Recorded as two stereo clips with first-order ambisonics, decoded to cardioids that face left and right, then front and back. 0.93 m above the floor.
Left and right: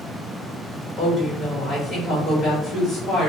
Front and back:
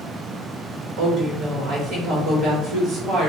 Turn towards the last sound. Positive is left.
turn(degrees=160)